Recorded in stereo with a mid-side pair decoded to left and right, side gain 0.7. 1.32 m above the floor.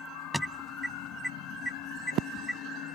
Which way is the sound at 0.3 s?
5° right.